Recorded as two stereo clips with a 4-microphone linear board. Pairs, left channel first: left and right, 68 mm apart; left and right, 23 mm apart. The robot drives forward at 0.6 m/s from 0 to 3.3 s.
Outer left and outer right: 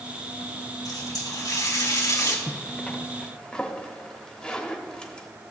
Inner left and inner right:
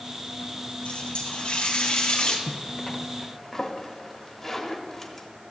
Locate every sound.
0.8 s a running tap: 70° left (ahead or behind), 2 m; by 2.4 s 55° left (ahead or behind), 2.5 m
2.5 s a zipper: 20° left (ahead or behind), 0.6 m; by 5.3 s 10° left (ahead or behind), 1.1 m